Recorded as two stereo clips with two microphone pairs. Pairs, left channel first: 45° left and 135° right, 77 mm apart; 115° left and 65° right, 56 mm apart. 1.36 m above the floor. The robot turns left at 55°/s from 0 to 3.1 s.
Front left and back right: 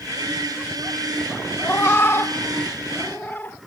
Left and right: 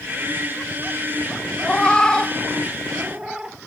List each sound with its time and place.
1.6 s a cat meowing: 85° left, 0.6 m; by 3.6 s 5° left, 0.6 m